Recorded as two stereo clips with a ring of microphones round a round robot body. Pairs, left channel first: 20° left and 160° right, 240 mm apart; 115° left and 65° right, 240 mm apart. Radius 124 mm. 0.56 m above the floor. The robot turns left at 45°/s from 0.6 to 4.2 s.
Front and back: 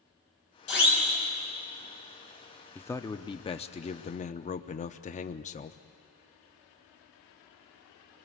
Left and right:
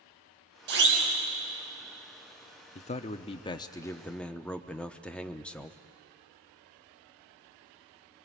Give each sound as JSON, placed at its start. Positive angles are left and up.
{"t": 0.7, "sound": "a siren", "azimuth_deg": -20, "distance_m": 6.0}
{"t": 2.8, "sound": "a man speaking", "azimuth_deg": 95, "distance_m": 0.7}